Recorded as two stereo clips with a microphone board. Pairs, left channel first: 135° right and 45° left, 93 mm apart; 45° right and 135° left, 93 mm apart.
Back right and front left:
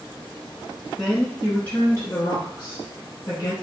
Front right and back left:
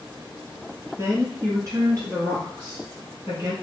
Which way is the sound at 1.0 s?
140° left.